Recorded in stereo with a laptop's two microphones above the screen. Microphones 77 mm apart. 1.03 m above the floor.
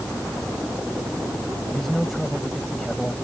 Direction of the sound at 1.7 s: 5° left (ahead or behind).